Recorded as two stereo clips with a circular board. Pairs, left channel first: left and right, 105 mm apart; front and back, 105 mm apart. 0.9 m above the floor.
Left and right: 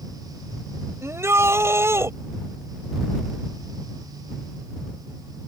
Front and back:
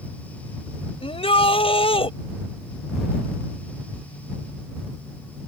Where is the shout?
25° right.